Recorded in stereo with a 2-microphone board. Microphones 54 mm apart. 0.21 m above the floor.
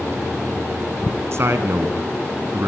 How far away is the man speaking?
About 1.7 m.